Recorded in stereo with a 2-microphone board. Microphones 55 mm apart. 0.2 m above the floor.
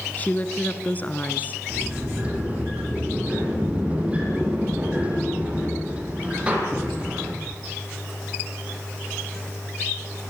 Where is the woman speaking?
30° left (ahead or behind), 2.5 m.